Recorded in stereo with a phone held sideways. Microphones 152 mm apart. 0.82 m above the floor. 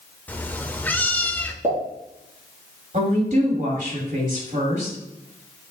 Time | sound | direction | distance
0.3 | a cat meowing | 10° left (ahead or behind) | 0.6 m
1.6 | a pop | 45° right (ahead or behind) | 3 m
2.9 | a woman speaking | 60° right (ahead or behind) | 2.5 m